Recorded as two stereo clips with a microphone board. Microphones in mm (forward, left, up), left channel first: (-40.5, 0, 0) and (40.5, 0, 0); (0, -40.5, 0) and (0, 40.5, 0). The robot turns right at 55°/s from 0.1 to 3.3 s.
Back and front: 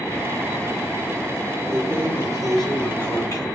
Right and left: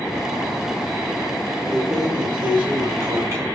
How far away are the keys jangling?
About 1.2 m.